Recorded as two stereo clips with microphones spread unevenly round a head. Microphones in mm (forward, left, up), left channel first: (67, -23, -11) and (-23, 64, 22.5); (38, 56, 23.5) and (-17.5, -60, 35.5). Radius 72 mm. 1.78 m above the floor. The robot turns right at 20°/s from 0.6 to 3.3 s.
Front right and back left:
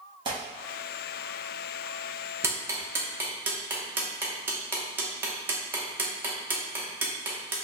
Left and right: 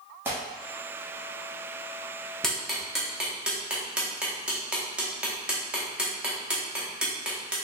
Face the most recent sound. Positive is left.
turn(degrees=175)